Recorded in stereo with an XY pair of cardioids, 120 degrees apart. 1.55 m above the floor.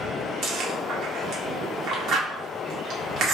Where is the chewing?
65° right, 1.2 m.